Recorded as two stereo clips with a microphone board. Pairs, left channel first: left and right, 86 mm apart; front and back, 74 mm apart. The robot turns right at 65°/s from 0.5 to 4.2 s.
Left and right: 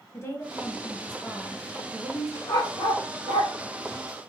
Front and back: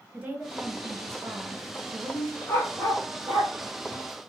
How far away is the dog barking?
About 1.6 m.